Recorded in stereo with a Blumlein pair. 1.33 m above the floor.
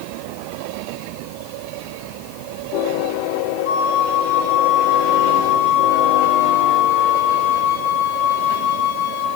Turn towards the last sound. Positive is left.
turn(degrees=50)